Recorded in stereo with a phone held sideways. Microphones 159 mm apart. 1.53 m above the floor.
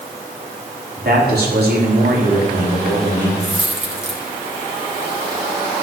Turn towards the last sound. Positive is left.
turn(degrees=-40)  # may be behind; listen again after turning